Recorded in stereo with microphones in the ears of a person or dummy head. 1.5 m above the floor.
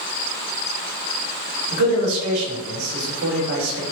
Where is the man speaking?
75° right (ahead or behind), 1.3 m.